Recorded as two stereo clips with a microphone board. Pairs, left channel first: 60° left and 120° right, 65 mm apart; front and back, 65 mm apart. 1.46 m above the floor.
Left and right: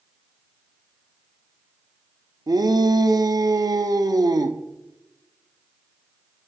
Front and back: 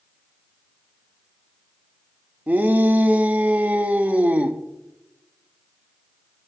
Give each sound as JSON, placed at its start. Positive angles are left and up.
{"t": 2.5, "sound": "a shout", "azimuth_deg": -115, "distance_m": 0.7}